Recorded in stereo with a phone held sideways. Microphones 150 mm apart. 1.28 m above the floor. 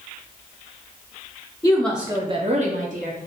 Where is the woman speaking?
20° left (ahead or behind), 0.6 m; by 3.3 s 60° right (ahead or behind), 1.2 m.